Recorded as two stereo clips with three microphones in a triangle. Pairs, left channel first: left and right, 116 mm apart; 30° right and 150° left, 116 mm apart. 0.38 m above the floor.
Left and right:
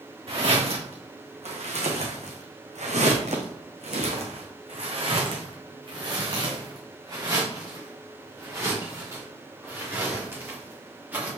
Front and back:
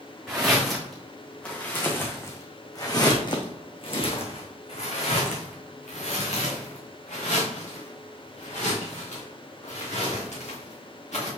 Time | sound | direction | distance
0.3 | footsteps | 125° right | 2 m